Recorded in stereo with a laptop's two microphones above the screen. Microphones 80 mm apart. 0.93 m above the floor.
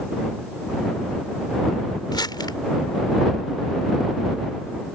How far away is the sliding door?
I don't hear a sliding door.